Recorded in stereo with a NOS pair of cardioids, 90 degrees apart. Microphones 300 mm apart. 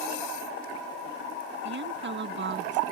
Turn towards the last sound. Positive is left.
turn(degrees=-40)